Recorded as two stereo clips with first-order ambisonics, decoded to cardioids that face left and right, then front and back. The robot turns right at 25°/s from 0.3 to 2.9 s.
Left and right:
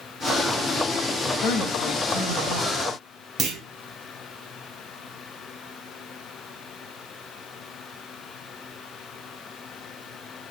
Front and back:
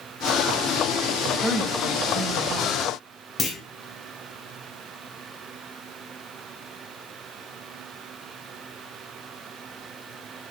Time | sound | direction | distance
1.4 | a woman speaking | 105° left | 1.0 m
3.4 | a clunk | 55° right | 0.7 m